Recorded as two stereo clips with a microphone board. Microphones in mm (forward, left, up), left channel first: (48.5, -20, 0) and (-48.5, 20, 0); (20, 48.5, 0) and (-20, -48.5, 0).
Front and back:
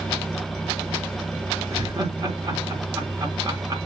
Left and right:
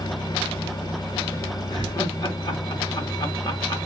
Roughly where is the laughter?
Left.